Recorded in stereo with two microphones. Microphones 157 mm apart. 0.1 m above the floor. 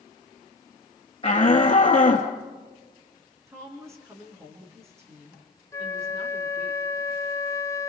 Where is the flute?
20° left (ahead or behind), 0.5 m.